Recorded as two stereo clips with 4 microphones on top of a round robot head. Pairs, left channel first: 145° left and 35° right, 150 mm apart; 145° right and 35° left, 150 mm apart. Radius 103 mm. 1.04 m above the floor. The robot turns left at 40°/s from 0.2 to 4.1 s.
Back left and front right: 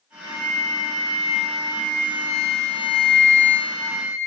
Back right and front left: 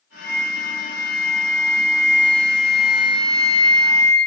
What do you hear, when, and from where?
0.2 s a flute: 170° right, 1.4 m; by 4.2 s 40° left, 1.4 m